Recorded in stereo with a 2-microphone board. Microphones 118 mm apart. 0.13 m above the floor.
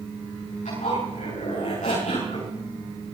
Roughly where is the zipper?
Left.